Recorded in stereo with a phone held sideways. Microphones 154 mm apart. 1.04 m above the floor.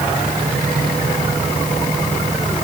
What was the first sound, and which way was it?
Only background noise.